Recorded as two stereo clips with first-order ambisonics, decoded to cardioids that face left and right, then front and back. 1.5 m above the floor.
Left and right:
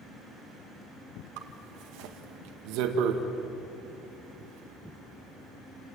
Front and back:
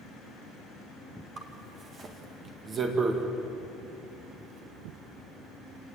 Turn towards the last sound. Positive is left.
turn(degrees=-115)